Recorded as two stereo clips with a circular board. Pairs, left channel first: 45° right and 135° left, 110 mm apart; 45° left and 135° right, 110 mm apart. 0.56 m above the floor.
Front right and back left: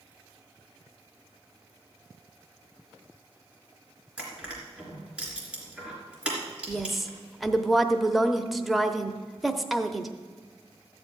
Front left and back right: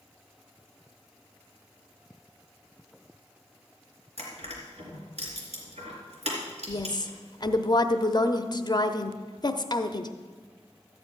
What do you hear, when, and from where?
4.2 s crushing: 145° right, 3 m
6.7 s a woman speaking: 45° left, 0.7 m